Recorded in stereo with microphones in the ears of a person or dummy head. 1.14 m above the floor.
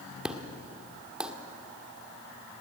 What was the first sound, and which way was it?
An explosion, 5° right (ahead or behind).